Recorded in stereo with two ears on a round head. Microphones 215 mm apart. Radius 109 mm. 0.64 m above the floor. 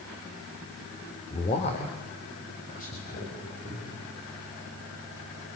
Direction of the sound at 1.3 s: 20° left (ahead or behind).